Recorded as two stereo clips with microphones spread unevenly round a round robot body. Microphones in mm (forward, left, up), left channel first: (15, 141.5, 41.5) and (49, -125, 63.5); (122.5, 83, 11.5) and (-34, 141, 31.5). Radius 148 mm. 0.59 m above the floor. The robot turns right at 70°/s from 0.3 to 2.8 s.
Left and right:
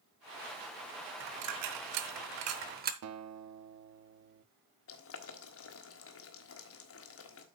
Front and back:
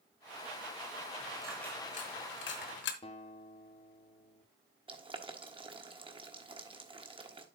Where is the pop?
No pop in this recording.